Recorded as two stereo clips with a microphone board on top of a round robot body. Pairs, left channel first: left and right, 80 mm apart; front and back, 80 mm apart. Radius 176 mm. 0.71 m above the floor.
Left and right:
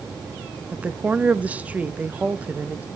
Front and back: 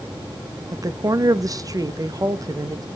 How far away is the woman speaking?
About 1.3 m.